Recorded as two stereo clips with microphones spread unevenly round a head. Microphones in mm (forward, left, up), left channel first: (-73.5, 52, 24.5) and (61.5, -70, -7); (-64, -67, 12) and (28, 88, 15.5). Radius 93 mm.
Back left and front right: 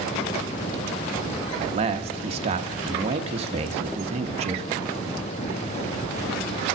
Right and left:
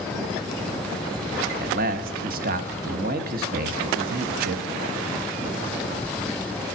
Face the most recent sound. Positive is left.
turn(degrees=15)